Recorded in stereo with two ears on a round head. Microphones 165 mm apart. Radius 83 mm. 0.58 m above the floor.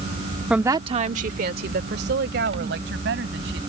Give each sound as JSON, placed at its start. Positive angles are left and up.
{"t": 0.5, "sound": "a woman speaking", "side_deg": -5}